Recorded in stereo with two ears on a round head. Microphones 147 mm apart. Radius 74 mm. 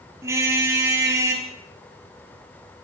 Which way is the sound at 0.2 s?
15° right (ahead or behind).